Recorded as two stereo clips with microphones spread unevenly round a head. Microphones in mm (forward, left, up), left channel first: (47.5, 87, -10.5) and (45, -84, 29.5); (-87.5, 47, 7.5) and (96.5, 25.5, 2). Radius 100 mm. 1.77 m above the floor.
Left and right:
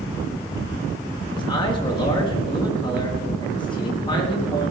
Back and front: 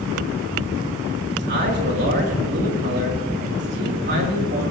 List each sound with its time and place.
1.3 s a man speaking: 25° left, 4 m